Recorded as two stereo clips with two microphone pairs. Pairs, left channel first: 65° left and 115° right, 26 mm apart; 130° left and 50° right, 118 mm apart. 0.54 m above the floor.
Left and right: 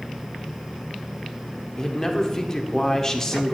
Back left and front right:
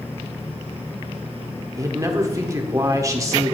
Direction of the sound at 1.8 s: Straight ahead.